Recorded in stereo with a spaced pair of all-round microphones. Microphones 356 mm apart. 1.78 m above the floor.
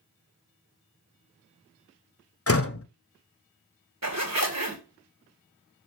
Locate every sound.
2.5 s a door slam: 40° left (ahead or behind), 0.7 m
4.0 s a zipper: 45° right (ahead or behind), 1.8 m